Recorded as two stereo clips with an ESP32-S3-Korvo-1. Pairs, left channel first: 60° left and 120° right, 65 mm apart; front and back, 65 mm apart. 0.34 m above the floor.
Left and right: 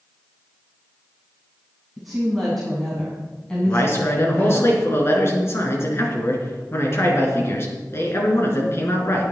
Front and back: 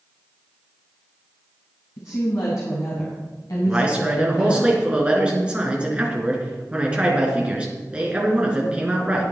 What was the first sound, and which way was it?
A woman speaking, 30° right.